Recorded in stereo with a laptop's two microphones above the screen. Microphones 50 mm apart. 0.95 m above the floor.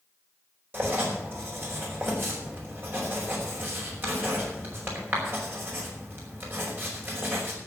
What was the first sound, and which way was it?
Writing, 45° right (ahead or behind).